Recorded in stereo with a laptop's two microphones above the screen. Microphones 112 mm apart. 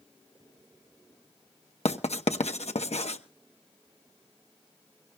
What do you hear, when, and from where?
1.9 s writing: 75° left (ahead or behind), 0.9 m